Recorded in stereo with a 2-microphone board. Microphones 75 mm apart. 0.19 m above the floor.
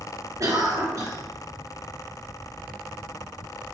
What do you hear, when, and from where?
0.4 s a cough: 45° right (ahead or behind), 2.5 m